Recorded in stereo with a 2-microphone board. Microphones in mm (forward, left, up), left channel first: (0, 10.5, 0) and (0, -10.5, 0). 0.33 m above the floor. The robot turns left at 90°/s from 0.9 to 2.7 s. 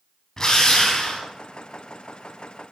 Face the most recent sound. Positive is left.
turn(degrees=-15)